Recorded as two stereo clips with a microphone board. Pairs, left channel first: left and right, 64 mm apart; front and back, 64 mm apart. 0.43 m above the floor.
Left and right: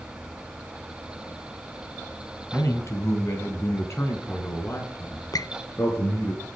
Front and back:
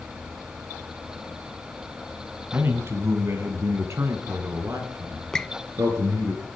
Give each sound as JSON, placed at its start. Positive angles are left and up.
{"t": 2.5, "sound": "a man speaking", "azimuth_deg": 130, "distance_m": 3.0}
{"t": 5.3, "sound": "a squeak", "azimuth_deg": 80, "distance_m": 0.6}